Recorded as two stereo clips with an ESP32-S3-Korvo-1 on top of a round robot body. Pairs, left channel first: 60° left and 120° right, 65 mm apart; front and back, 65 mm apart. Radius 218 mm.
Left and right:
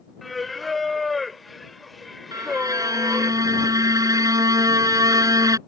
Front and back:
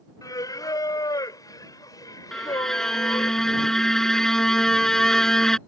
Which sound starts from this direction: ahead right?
Singing, at 0.2 s.